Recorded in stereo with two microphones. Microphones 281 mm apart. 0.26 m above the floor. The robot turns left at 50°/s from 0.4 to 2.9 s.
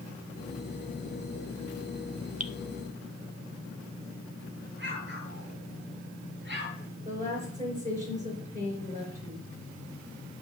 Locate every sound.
2.4 s dripping: 25° right (ahead or behind), 0.5 m; by 2.5 s 30° right (ahead or behind), 0.5 m
4.8 s an explosion: 40° right (ahead or behind), 2 m
7.0 s a woman speaking: 25° right (ahead or behind), 4.5 m